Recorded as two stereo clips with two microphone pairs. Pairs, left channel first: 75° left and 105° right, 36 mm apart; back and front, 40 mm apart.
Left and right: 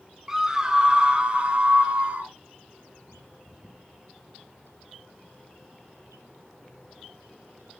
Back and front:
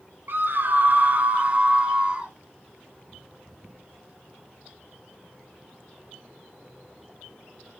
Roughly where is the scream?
Ahead right.